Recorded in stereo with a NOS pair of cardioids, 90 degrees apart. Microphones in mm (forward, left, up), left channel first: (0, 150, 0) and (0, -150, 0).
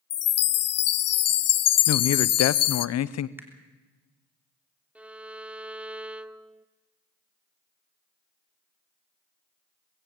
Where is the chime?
55° left, 0.6 m.